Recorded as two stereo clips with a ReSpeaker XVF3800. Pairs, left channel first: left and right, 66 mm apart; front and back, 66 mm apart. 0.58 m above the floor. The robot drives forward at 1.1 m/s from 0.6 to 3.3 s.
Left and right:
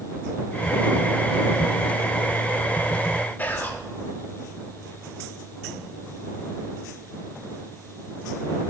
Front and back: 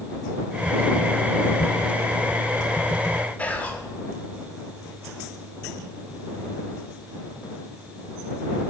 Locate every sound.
3.4 s whispering: 50° left, 0.7 m